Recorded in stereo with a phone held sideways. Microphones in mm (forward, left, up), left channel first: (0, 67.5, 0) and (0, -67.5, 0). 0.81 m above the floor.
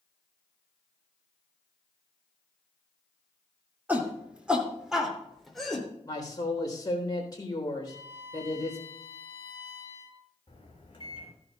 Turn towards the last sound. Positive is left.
turn(degrees=40)  # may be behind; listen again after turning